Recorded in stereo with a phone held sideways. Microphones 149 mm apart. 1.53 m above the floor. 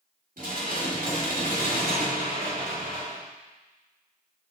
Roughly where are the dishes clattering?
Right.